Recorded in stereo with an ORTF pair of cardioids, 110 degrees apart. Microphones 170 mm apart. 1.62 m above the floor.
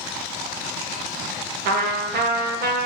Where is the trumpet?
65° right, 1.6 m.